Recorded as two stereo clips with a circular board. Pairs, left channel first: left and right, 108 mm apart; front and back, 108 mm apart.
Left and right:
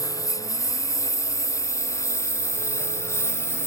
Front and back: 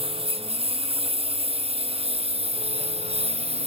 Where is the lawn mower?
150° left; by 3.7 s 155° left.